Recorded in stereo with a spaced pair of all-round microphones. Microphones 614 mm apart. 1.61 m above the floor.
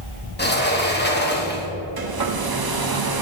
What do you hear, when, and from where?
0.4 s a sliding door: 15° left (ahead or behind), 1.1 m
2.0 s a hair dryer: 40° right (ahead or behind), 0.6 m